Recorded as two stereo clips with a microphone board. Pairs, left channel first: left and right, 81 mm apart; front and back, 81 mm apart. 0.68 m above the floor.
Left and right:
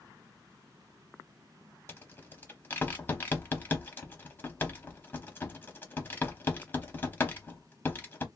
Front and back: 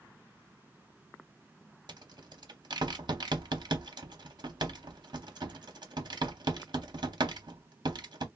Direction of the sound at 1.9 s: 155° left.